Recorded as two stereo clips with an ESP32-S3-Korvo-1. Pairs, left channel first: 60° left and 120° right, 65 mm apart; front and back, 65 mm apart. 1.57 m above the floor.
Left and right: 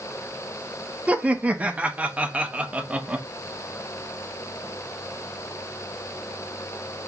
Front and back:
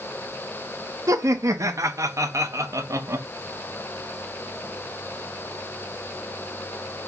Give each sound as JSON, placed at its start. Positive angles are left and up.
{"t": 1.1, "sound": "laughter", "azimuth_deg": 175, "distance_m": 0.5}